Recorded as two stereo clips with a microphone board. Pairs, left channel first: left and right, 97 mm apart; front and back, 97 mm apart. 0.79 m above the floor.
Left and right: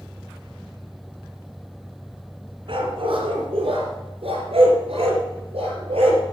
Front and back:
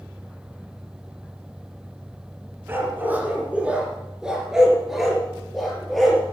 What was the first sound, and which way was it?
A dog barking, 115° right.